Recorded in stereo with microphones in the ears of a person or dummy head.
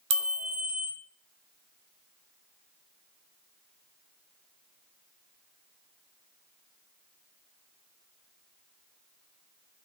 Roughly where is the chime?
Right.